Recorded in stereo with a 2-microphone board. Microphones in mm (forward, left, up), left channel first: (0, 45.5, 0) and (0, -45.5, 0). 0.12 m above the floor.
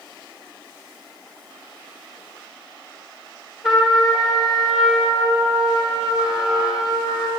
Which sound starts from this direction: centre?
A trumpet, at 3.6 s.